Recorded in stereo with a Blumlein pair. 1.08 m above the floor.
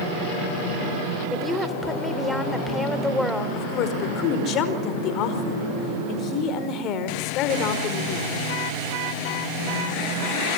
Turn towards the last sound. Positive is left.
turn(degrees=35)